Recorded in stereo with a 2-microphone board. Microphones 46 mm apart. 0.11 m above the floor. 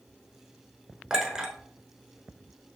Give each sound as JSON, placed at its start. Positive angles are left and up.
{"t": 1.1, "sound": "a clink", "side_deg": -15, "distance_m": 1.0}